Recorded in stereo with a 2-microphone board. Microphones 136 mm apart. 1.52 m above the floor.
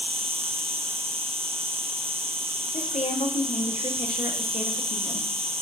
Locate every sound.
0.0 s an insect: 45° right (ahead or behind), 1.0 m
2.7 s a woman speaking: 55° left (ahead or behind), 1.1 m